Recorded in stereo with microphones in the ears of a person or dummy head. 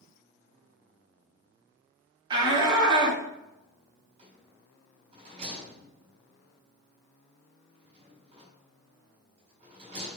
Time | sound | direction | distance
2.3 | a shout | 20° right (ahead or behind) | 2.5 m
4.2 | a rattle | 30° right (ahead or behind) | 5 m